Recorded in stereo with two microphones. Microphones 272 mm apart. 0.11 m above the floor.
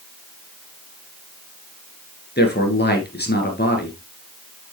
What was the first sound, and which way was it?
A man speaking, 40° left (ahead or behind).